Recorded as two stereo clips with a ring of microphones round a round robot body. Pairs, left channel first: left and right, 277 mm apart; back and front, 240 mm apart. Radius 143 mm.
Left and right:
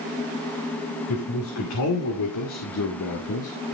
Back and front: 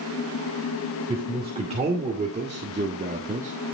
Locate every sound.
1.1 s a man speaking: 65° left, 3 m; by 3.5 s 55° left, 1.5 m